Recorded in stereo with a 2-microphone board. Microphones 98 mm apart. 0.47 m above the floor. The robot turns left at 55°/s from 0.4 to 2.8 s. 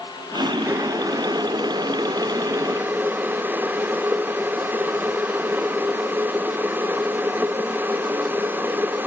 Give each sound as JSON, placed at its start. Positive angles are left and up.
{"t": 0.7, "sound": "boiling", "azimuth_deg": -30, "distance_m": 0.7}